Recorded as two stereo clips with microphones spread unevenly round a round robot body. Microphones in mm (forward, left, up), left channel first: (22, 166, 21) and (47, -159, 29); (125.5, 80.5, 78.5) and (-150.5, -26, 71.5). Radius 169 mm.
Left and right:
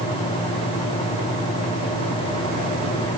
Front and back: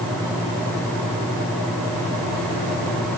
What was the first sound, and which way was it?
Only background noise.